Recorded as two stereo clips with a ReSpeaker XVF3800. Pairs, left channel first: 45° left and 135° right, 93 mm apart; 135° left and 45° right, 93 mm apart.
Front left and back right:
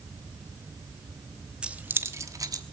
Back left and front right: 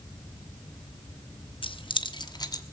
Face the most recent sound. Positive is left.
turn(degrees=180)